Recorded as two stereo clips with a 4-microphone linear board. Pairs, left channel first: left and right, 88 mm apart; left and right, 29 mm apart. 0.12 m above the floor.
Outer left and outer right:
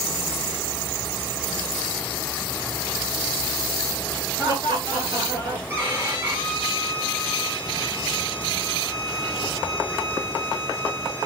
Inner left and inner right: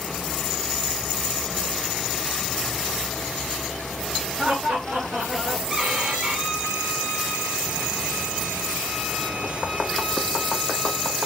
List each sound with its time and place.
4.4 s laughter: 35° right (ahead or behind), 2 m; by 5.6 s 40° right (ahead or behind), 1.9 m
5.7 s a violin: 30° right (ahead or behind), 2 m